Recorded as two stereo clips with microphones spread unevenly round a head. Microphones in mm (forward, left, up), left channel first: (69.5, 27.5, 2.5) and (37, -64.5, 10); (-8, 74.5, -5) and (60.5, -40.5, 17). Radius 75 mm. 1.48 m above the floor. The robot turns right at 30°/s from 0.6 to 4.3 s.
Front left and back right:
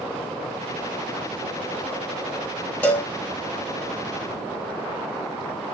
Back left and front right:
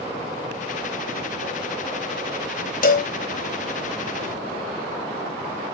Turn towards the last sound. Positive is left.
turn(degrees=-165)